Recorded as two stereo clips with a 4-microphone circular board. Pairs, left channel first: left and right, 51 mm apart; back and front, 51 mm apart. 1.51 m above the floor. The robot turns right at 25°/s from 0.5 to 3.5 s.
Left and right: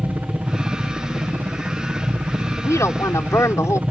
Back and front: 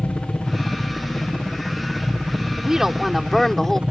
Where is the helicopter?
130° right; by 3.9 s 55° right.